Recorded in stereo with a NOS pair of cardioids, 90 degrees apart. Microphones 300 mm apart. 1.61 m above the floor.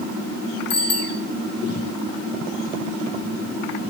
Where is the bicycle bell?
55° left, 4 m.